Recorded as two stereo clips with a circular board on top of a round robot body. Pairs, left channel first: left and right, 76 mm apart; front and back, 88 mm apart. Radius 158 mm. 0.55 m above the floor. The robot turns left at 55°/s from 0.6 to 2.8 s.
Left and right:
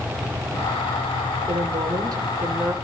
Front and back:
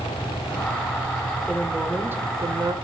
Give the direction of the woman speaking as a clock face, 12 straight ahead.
3 o'clock.